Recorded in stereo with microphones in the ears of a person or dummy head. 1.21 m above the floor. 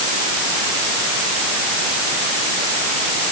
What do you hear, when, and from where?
Only background noise.